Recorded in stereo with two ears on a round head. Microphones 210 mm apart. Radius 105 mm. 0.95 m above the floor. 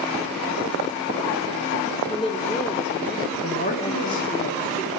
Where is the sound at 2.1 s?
25° left (ahead or behind), 2.0 m.